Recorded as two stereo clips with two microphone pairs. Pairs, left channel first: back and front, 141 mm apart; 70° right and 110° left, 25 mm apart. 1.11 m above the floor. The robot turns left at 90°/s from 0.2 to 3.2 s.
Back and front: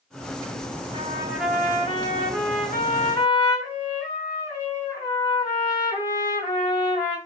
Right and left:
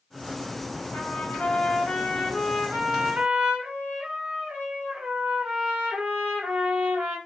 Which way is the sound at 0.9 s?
45° right.